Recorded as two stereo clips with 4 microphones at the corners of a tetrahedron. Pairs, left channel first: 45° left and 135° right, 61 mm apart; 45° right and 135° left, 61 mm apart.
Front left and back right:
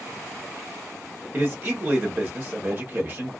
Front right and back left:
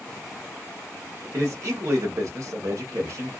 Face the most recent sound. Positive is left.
turn(degrees=170)